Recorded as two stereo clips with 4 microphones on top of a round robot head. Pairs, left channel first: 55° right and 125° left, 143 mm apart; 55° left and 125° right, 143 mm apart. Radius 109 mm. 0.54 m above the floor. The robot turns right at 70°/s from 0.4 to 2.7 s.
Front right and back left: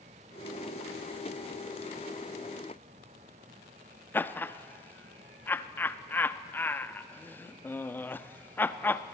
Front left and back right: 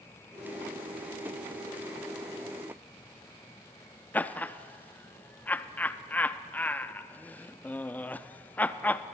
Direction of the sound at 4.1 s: 5° right.